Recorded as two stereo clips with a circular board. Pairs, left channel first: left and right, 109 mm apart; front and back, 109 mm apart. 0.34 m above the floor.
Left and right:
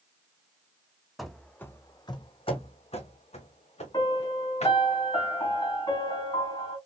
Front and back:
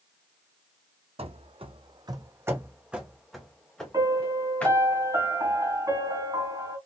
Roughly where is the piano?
Behind left.